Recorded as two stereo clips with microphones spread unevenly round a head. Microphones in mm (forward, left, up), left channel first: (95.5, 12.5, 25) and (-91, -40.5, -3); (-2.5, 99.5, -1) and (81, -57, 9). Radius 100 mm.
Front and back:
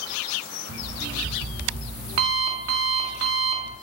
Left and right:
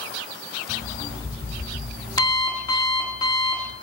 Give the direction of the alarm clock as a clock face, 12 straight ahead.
6 o'clock.